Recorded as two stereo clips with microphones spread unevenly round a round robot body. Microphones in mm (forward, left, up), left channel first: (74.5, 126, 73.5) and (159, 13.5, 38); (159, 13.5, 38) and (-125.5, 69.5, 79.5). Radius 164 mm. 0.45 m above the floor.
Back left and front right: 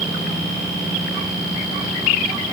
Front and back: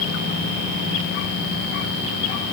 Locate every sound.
Only background noise.